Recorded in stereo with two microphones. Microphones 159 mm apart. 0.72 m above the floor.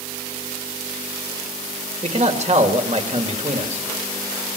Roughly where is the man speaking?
Right.